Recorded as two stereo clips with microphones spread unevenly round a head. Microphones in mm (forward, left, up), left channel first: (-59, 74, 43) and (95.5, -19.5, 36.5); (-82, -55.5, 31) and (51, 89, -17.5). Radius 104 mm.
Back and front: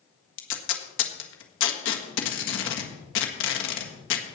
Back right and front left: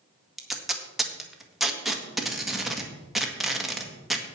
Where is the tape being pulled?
140° left, 1.6 m.